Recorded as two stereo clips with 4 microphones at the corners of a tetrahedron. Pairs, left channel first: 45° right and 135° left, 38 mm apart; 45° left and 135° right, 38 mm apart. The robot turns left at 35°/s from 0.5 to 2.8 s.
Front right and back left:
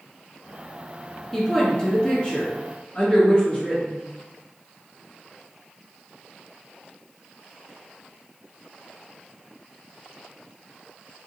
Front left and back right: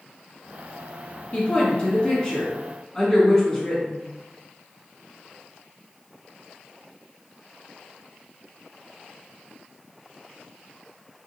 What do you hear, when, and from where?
1.3 s a woman speaking: 30° left, 1.2 m; by 4.0 s 25° right, 1.2 m